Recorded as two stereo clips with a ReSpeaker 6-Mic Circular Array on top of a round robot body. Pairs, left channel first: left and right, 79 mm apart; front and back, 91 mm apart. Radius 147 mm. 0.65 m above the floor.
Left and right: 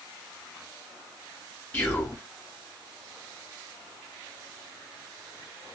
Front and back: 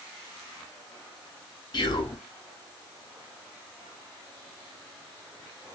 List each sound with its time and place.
1.7 s whispering: 35° left, 1.7 m